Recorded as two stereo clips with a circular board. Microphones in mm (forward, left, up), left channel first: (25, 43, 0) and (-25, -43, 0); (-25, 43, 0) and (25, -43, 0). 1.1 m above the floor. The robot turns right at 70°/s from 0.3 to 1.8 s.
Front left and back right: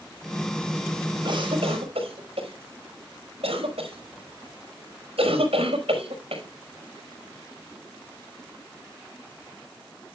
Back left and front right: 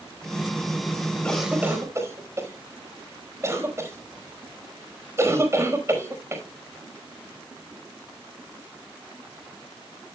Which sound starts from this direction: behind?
A cough, at 1.2 s.